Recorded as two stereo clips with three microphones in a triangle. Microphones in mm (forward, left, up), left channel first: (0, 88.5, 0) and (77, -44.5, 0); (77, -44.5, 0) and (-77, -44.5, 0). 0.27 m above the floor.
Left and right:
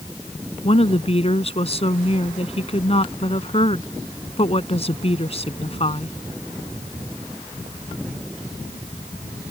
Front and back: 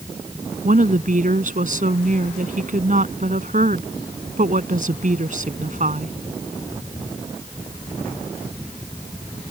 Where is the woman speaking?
165° left.